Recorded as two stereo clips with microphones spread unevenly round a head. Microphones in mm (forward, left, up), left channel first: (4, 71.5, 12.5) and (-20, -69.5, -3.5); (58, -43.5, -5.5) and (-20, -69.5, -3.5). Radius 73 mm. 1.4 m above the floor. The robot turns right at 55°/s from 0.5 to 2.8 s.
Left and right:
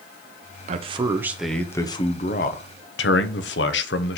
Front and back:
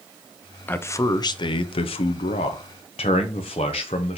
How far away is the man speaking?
About 0.6 m.